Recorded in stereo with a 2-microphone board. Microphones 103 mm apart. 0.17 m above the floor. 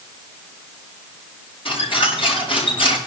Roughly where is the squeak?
Left.